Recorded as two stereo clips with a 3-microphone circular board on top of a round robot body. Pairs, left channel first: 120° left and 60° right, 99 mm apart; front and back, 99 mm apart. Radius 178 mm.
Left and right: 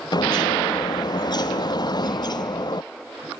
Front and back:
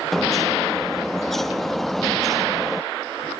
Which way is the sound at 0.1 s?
85° left.